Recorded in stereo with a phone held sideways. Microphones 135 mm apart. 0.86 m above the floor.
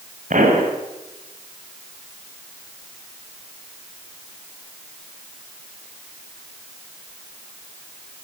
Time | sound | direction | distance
0.3 | a pop | 75° right (ahead or behind) | 5 m